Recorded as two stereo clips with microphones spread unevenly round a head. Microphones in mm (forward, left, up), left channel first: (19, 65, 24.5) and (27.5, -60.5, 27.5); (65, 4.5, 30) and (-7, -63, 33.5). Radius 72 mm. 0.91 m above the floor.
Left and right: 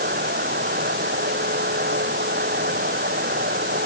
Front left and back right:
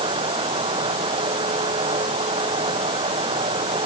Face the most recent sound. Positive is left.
turn(degrees=-105)